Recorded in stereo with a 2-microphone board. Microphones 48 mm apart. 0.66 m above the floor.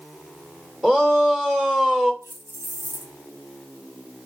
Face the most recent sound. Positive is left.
turn(degrees=-80)